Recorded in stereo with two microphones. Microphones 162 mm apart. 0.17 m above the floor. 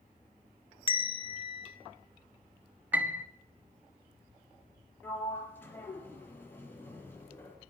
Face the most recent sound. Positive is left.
turn(degrees=15)  # may be behind; listen again after turning